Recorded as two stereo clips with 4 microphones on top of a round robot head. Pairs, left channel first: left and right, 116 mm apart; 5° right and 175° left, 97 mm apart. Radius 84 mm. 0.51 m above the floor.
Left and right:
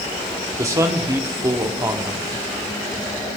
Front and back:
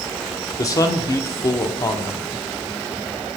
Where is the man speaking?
40° right, 1.3 m.